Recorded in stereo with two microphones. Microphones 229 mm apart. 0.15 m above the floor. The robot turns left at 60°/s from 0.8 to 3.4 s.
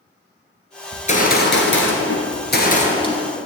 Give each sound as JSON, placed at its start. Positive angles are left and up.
{"t": 0.9, "sound": "a gunshot", "azimuth_deg": 155, "distance_m": 1.5}